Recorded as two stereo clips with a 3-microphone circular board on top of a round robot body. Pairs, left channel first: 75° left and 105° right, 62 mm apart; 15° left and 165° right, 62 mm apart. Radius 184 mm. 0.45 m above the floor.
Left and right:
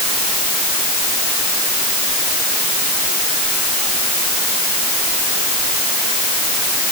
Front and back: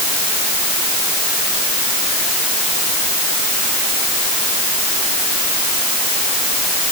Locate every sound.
Only background noise.